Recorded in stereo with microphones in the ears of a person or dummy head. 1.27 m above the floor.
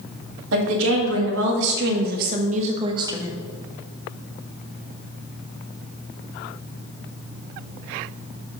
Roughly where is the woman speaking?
Right.